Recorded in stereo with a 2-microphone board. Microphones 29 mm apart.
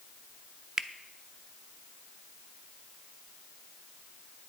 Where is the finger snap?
25° right (ahead or behind), 0.6 m.